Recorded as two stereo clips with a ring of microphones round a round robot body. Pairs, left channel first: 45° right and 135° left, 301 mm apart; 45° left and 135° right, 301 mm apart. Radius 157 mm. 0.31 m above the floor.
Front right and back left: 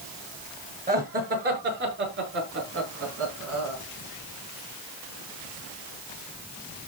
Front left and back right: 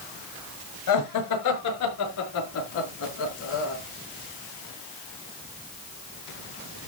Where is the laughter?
70° left, 5.5 m; by 3.8 s 95° left, 5 m.